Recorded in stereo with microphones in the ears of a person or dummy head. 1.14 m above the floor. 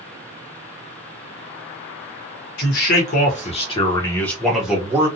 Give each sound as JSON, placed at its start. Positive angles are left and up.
{"t": 2.6, "sound": "a man speaking", "side_deg": 60, "distance_m": 1.1}